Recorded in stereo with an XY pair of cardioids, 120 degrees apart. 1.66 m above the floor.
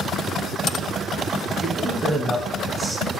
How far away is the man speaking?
About 0.9 m.